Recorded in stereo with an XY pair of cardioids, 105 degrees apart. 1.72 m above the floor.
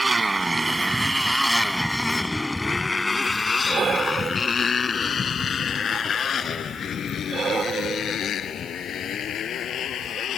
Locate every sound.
0.0 s a motorcycle: 25° right; by 10.4 s 60° left
3.7 s breathing: 45° right